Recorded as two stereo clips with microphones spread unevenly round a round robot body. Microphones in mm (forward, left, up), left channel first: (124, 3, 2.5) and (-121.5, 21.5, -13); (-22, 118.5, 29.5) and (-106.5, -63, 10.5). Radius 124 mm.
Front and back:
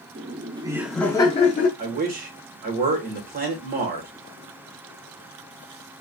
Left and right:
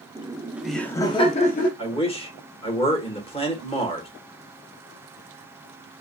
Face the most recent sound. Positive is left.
turn(degrees=125)